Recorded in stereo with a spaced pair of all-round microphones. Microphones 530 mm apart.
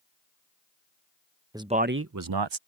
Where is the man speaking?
5° right (ahead or behind); by 2.6 s 60° right (ahead or behind).